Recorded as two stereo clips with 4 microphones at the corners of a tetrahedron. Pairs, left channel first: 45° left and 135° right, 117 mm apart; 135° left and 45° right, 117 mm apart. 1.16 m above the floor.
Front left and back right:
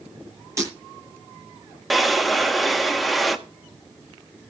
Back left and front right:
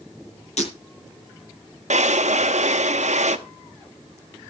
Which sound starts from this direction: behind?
Breaking glass, at 0.6 s.